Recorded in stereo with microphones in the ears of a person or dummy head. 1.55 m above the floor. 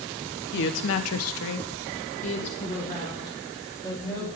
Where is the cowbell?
No cowbell in this recording.